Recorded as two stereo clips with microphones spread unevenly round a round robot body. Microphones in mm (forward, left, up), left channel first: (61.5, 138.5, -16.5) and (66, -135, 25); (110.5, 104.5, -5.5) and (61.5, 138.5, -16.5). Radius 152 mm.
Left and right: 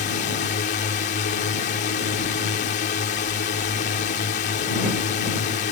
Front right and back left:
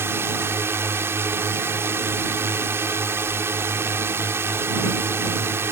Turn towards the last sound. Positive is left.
turn(degrees=135)